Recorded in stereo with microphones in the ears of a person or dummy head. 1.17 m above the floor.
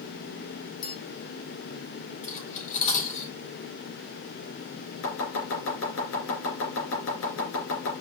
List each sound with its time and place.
0.8 s a bell: 45° left (ahead or behind), 0.6 m
2.2 s cutlery clinking: 45° left (ahead or behind), 3 m
5.0 s chopping: 70° left (ahead or behind), 3.5 m